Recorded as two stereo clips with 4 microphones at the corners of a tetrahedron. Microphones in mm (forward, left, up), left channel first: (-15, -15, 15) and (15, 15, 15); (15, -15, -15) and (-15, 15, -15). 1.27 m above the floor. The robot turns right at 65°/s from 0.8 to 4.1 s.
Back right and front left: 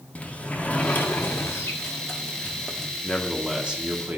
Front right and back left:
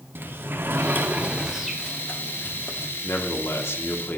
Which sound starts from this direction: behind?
A sliding door, at 0.1 s.